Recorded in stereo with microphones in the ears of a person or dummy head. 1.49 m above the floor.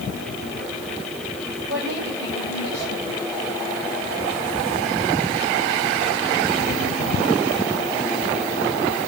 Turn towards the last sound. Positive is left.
turn(degrees=-70)  # may be behind; listen again after turning